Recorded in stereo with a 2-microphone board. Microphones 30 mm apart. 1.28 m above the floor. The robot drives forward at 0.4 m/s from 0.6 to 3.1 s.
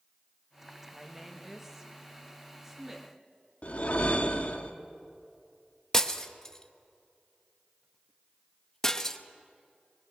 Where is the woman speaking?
15° right (ahead or behind), 1.7 m; by 3.1 s 10° right (ahead or behind), 2.5 m.